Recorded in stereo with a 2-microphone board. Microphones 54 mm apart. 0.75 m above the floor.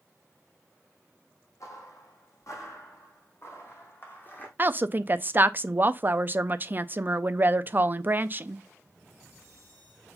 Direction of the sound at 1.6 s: 70° left (ahead or behind).